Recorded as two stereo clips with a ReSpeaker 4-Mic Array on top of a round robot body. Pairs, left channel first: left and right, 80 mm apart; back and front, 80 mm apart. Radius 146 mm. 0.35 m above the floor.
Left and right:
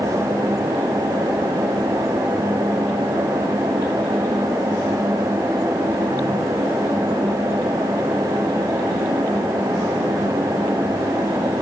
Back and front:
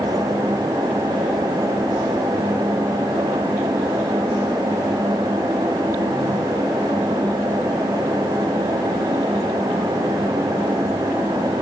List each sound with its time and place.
Only background noise.